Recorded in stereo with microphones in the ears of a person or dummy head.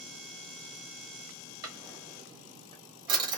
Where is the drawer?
20° right (ahead or behind), 1.0 m.